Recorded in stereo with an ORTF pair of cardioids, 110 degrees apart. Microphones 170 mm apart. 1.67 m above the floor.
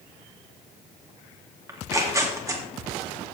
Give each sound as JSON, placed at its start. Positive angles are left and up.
{"t": 1.7, "sound": "tearing paper", "azimuth_deg": -20, "distance_m": 2.5}